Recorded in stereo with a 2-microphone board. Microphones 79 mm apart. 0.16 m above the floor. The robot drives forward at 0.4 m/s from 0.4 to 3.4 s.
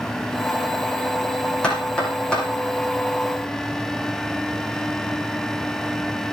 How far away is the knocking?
About 6.5 m.